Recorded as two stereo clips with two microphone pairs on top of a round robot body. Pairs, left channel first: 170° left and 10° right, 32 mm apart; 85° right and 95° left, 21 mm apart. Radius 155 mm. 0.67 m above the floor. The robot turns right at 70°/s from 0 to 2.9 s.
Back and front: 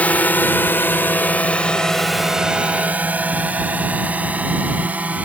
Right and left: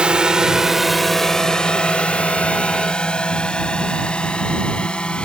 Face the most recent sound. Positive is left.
turn(degrees=-50)